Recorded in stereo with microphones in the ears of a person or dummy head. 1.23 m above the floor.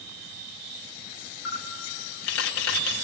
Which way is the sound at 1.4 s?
70° left (ahead or behind).